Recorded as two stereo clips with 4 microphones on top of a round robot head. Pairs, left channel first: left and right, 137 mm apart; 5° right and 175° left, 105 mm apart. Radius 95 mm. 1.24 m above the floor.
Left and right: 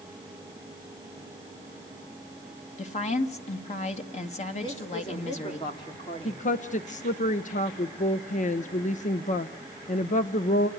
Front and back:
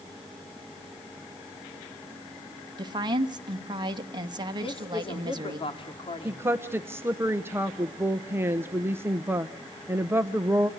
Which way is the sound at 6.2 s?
105° left.